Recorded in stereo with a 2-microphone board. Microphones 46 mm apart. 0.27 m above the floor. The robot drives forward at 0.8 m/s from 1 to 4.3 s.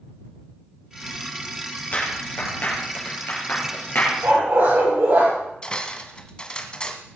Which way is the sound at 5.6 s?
20° left (ahead or behind).